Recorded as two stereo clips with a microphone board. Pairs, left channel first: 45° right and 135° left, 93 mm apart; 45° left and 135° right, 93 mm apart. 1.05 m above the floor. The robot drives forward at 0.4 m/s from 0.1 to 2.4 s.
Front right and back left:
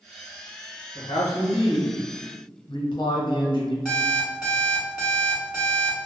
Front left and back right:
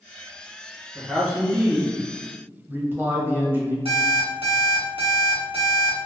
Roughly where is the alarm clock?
Behind right.